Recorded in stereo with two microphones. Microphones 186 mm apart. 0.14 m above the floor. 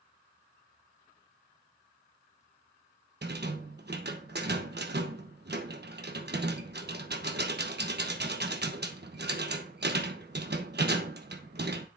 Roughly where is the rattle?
Right.